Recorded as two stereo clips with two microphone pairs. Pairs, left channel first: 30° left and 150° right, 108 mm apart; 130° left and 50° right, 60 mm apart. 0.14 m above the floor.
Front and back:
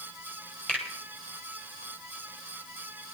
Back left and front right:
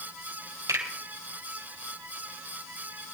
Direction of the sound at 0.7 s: 50° right.